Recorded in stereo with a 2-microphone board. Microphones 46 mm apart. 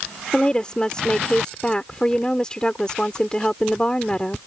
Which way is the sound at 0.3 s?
20° left (ahead or behind).